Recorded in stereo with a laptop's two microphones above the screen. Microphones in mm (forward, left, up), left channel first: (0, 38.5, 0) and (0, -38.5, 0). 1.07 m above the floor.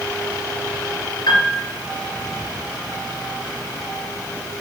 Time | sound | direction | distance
1.3 | a piano | 55° left (ahead or behind) | 2.5 m